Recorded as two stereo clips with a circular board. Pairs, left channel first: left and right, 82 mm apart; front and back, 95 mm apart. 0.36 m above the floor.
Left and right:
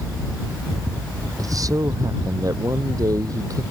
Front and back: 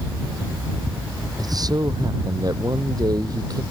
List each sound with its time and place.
1.4 s a man speaking: 135° right